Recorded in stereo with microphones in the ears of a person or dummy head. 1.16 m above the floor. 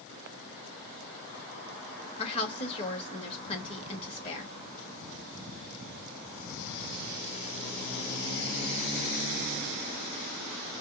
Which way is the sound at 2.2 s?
30° left (ahead or behind).